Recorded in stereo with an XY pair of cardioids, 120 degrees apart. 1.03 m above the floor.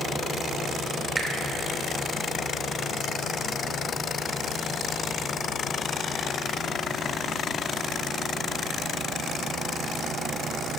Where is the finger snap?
20° right, 2.5 m.